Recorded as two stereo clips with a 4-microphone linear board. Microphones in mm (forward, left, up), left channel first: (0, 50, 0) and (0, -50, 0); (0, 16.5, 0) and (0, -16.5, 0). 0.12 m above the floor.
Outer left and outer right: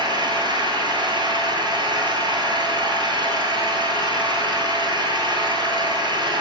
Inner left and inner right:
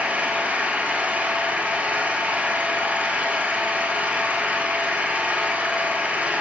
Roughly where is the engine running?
Right.